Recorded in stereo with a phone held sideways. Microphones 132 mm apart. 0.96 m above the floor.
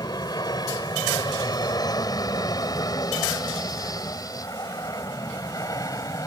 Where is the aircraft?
30° left (ahead or behind); by 6.3 s 25° left (ahead or behind).